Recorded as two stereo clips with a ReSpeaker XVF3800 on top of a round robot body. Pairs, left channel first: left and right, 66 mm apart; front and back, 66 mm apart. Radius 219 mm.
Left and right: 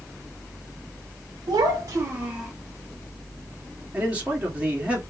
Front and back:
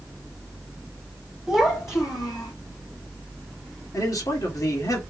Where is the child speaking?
85° right, 0.8 m; by 2.5 s 5° right, 1.2 m.